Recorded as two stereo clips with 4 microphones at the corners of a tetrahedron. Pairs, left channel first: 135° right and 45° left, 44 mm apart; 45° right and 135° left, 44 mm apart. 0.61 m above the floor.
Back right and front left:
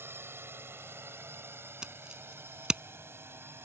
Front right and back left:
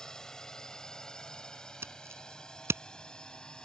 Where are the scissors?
115° left.